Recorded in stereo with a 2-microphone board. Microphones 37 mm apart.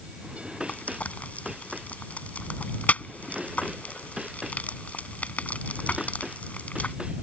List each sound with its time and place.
0.7 s frying: 40° left (ahead or behind)